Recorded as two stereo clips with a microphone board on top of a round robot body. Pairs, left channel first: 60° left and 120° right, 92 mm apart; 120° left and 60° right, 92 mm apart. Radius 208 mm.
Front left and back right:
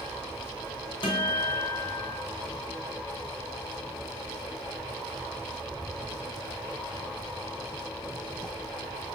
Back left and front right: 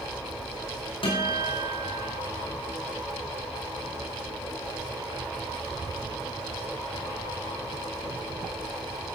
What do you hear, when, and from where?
1.0 s a guitar: 90° left, 5 m